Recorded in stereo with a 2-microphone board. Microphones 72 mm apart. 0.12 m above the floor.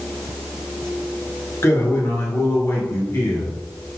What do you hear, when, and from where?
1.6 s a man speaking: 45° left (ahead or behind), 1.6 m